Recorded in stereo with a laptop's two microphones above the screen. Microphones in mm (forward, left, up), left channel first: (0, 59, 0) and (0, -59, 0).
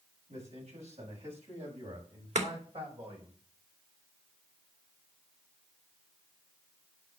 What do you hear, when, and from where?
0.3 s a man speaking: 70° right (ahead or behind), 6.5 m; by 3.3 s 50° right (ahead or behind), 5.5 m
2.4 s chopping: 80° right, 2.5 m